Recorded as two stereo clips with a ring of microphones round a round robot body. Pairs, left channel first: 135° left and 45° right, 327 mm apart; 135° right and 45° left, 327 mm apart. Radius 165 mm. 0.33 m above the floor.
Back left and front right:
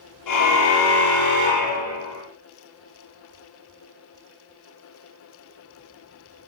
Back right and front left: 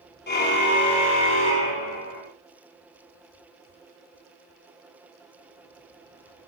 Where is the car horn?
165° left, 5 m; by 2.2 s 175° left, 7 m.